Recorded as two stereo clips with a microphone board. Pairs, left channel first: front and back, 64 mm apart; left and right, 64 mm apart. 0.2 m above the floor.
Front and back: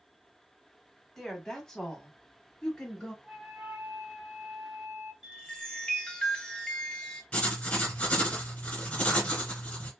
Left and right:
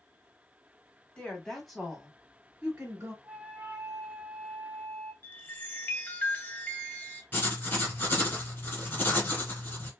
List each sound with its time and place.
1.2 s a woman speaking: 75° left, 1.0 m; by 3.1 s 70° right, 1.2 m
3.2 s a flute: 130° right, 0.9 m
5.2 s a chime: 60° left, 0.8 m
7.3 s writing: 60° left, 1.7 m